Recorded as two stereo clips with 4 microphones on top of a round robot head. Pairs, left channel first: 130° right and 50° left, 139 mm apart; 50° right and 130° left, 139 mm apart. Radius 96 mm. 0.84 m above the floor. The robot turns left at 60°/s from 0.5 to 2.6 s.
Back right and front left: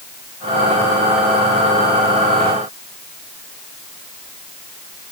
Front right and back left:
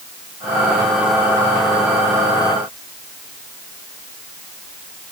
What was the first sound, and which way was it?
Only background noise.